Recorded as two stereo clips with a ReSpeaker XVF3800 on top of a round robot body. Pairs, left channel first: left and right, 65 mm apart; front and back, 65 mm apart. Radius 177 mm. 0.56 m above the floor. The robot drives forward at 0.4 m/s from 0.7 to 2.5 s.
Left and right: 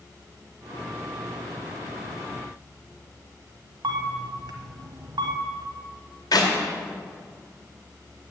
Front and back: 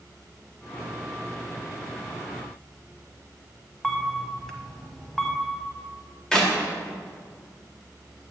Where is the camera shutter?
85° right, 0.8 m.